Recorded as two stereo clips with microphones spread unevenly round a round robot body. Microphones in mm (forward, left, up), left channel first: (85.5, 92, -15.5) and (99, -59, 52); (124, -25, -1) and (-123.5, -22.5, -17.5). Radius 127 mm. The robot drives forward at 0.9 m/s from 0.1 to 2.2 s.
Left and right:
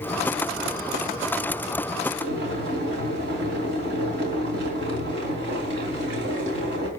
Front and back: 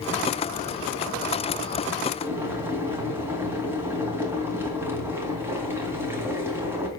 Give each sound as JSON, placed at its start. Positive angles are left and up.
{"t": 2.2, "sound": "boiling", "azimuth_deg": -100, "distance_m": 3.0}